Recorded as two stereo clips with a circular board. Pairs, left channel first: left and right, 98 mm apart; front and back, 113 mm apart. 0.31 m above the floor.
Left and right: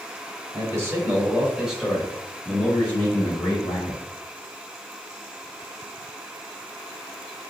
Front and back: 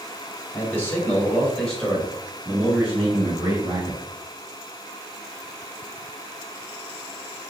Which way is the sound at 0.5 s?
55° right.